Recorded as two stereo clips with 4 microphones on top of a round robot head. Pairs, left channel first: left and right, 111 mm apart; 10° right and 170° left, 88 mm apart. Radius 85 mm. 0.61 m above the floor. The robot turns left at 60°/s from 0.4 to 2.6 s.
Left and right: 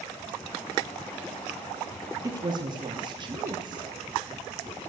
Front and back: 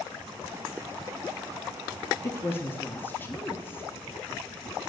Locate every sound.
2.2 s a woman speaking: 45° right, 1.3 m; by 3.9 s 70° right, 1.3 m